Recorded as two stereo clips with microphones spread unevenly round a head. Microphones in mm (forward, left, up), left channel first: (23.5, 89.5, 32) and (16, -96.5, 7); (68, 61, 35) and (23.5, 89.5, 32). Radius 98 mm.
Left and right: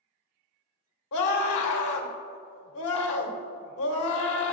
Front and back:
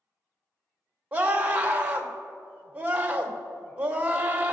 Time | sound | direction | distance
1.1 | a scream | 85° left | 1.9 m